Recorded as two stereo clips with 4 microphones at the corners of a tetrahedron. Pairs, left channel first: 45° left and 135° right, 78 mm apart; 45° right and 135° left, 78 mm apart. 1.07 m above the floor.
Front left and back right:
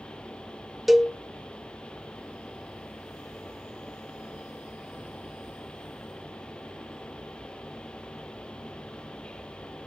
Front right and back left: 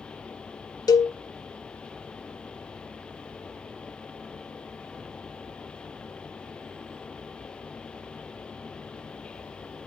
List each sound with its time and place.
0.9 s a cowbell: 50° right, 0.6 m